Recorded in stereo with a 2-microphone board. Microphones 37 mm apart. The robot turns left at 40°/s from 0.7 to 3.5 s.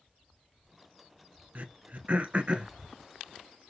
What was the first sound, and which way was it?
Throat clearing, 50° right (ahead or behind).